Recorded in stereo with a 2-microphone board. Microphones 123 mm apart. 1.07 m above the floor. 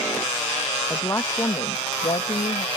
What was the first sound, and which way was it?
A woman speaking, 15° left (ahead or behind).